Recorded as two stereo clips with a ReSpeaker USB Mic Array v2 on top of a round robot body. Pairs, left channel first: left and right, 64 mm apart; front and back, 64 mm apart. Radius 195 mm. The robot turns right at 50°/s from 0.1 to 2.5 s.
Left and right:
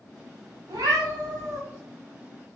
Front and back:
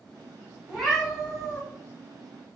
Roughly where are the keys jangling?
I don't hear keys jangling.